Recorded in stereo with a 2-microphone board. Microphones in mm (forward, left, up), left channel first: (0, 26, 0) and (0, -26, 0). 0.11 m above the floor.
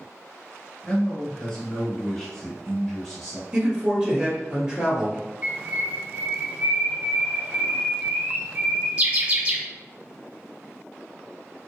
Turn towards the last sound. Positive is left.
turn(degrees=-25)  # may be behind; listen again after turning